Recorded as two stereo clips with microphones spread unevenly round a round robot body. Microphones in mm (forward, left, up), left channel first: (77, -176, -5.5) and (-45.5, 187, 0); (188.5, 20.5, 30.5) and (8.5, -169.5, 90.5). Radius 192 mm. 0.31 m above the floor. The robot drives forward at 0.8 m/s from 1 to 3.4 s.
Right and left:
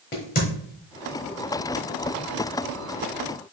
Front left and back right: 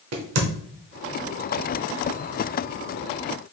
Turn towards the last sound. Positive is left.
turn(degrees=-165)